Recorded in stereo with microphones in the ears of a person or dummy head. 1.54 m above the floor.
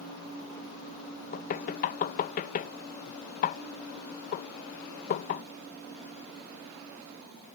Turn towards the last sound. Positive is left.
turn(degrees=45)  # may be behind; listen again after turning